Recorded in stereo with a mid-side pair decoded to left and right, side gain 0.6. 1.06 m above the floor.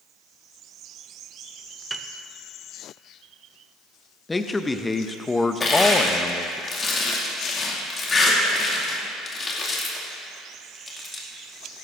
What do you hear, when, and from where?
1.9 s a piano: 15° right, 0.6 m
4.3 s a man speaking: 15° left, 0.7 m
5.6 s crushing: 30° left, 2.5 m